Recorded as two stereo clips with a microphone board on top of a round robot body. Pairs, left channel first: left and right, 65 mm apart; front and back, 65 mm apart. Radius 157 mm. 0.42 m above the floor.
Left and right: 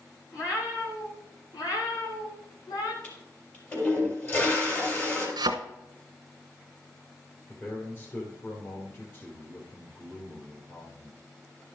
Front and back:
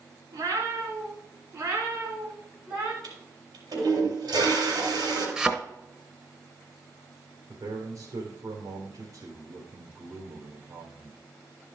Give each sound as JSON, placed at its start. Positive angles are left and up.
{"t": 0.3, "sound": "a cat meowing", "azimuth_deg": 135, "distance_m": 3.0}
{"t": 3.0, "sound": "a toilet flushing", "azimuth_deg": 150, "distance_m": 3.5}
{"t": 5.4, "sound": "a thud", "azimuth_deg": -95, "distance_m": 0.9}
{"t": 7.5, "sound": "a man speaking", "azimuth_deg": 145, "distance_m": 2.5}